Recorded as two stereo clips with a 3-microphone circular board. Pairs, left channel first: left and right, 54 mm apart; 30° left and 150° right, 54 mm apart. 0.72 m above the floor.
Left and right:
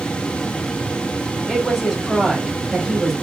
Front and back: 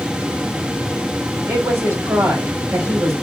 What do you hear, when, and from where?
1.5 s a woman speaking: 175° right, 2.5 m